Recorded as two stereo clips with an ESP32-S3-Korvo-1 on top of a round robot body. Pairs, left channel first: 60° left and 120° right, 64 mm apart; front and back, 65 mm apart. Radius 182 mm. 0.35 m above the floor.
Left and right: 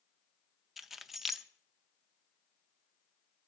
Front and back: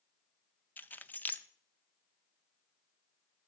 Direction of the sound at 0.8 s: 35° right.